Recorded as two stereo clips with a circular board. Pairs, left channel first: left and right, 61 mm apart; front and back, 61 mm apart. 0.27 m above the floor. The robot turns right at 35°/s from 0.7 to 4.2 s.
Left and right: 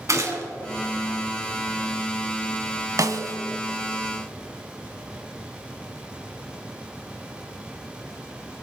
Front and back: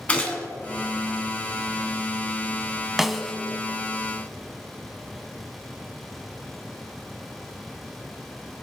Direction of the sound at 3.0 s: 95° right.